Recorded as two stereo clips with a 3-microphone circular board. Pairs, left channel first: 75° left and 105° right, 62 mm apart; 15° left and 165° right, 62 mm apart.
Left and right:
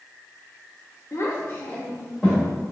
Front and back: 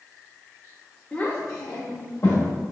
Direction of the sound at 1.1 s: 80° left.